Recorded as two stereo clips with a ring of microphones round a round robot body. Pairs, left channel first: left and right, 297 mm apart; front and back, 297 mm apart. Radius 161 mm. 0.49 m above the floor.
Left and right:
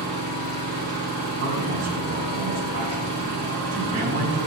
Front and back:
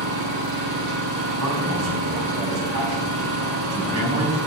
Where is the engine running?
175° left, 7 m.